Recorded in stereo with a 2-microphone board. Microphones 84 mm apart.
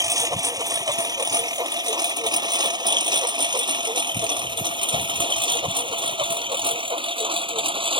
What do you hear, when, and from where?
0.0 s a lawn mower: 40° right (ahead or behind); by 8.0 s 75° right (ahead or behind)